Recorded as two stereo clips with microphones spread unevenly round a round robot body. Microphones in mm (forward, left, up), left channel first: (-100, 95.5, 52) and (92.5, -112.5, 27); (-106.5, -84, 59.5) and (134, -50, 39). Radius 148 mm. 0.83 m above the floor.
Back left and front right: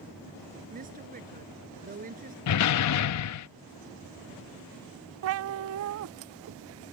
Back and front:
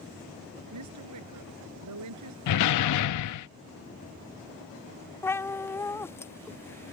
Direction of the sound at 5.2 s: 90° right.